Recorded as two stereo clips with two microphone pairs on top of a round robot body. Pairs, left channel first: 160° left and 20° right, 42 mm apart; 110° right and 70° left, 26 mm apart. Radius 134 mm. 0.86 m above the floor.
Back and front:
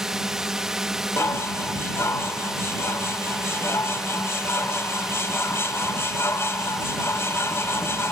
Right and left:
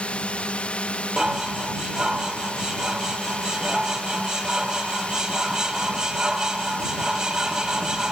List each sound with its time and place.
0.0 s a drone: 90° right
1.2 s dishes clattering: 135° left